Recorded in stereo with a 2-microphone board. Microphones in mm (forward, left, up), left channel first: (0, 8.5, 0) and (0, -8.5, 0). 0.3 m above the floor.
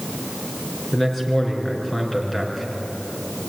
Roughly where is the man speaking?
Centre.